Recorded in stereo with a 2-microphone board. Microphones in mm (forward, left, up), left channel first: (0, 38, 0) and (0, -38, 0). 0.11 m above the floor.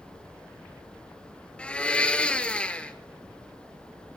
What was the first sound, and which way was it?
A blender, 15° left (ahead or behind).